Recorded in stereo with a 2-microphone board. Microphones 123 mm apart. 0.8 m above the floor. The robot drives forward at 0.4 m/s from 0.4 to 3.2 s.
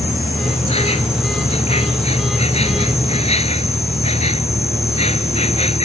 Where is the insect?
55° left (ahead or behind); by 5.8 s 60° left (ahead or behind).